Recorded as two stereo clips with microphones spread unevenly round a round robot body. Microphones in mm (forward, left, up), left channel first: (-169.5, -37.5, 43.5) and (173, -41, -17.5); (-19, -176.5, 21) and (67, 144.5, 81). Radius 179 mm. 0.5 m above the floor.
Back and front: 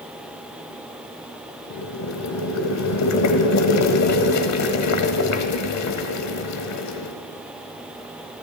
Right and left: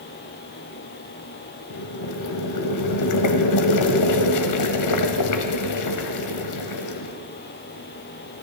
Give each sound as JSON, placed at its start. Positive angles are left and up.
{"t": 1.7, "sound": "boiling", "azimuth_deg": -135, "distance_m": 1.9}